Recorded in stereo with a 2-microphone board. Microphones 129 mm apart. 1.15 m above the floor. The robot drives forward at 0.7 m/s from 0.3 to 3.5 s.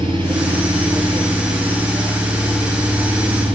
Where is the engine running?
40° right (ahead or behind), 7 m; by 3.6 s 30° right (ahead or behind), 9 m.